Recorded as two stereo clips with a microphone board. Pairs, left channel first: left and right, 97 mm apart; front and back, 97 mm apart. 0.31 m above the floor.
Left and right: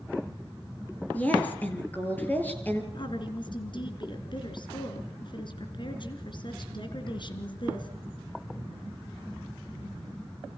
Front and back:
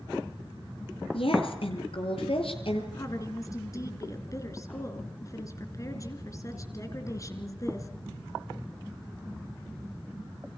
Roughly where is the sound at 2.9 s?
Ahead left.